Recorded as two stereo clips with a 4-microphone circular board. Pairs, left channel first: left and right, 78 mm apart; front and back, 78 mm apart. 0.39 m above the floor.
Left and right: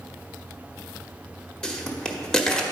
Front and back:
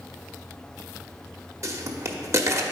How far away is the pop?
About 0.8 m.